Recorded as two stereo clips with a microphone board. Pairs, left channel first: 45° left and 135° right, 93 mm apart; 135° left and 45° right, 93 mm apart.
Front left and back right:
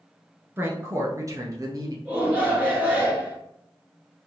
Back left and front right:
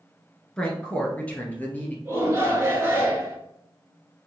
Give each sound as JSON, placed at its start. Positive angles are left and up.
{"t": 0.6, "sound": "a woman speaking", "azimuth_deg": -155, "distance_m": 1.2}
{"t": 2.0, "sound": "a shout", "azimuth_deg": -75, "distance_m": 1.9}